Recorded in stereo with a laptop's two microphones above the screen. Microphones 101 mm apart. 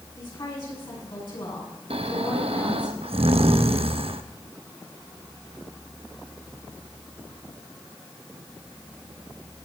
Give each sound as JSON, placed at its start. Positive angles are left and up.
{"t": 0.1, "sound": "a woman speaking", "side_deg": 50, "distance_m": 7.5}
{"t": 1.9, "sound": "snoring", "side_deg": -75, "distance_m": 0.7}